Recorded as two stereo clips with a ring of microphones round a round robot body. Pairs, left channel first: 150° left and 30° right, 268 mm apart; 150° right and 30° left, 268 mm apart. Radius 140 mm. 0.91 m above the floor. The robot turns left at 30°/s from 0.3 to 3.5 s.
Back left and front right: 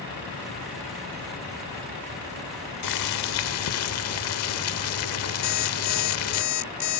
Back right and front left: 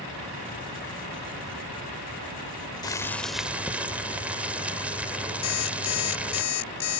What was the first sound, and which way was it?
Boiling, 135° left.